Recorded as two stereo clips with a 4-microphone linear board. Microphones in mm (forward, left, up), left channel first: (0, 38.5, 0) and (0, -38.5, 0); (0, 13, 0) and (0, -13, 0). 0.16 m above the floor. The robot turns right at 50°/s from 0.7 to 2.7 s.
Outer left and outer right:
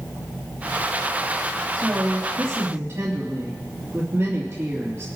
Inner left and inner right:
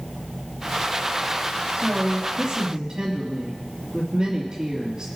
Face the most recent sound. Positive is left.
turn(degrees=-40)